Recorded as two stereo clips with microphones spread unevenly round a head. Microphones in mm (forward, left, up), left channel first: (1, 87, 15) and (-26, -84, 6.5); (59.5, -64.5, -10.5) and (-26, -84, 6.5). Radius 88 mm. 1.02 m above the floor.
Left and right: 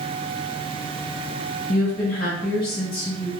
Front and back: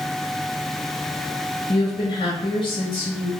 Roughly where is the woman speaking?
Ahead left.